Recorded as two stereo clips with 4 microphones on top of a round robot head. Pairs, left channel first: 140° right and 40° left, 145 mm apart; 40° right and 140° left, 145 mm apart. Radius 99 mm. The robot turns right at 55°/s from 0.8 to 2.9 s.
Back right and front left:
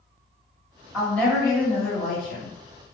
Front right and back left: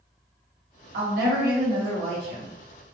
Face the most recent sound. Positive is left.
turn(degrees=-125)